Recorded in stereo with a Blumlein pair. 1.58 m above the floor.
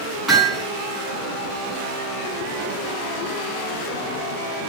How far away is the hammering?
About 8 m.